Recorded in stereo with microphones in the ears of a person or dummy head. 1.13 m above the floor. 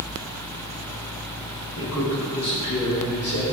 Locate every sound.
1.8 s a man speaking: 60° left (ahead or behind), 1.9 m; by 3.4 s 80° left, 3 m